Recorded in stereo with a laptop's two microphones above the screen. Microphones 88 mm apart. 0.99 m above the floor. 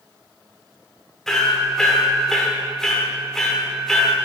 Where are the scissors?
No scissors in this recording.